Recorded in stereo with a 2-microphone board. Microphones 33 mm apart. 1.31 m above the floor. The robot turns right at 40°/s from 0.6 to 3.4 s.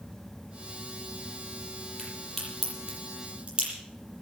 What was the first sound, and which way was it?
A crack, 15° left (ahead or behind).